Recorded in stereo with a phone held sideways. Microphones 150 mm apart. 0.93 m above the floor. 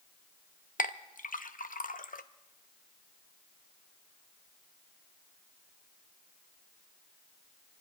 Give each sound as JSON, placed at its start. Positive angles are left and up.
{"t": 0.8, "sound": "a clink", "side_deg": 70, "distance_m": 0.6}